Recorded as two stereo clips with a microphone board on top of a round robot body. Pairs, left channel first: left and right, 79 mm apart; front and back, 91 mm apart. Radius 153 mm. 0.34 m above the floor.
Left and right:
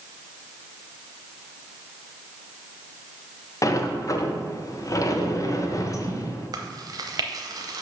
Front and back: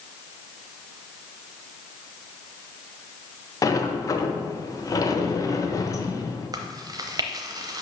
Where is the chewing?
130° right, 0.7 m.